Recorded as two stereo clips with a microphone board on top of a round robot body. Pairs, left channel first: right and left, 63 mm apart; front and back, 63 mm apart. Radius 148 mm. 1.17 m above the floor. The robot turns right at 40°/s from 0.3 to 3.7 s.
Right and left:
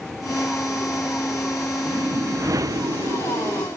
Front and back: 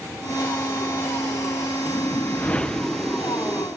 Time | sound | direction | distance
1.9 | a whoosh | 40° left | 1.4 m